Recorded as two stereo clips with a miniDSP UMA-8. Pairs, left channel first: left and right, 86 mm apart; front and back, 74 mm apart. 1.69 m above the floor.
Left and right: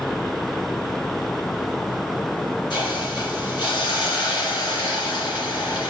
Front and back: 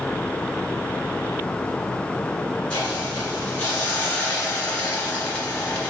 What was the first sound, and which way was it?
A hiss, 70° left.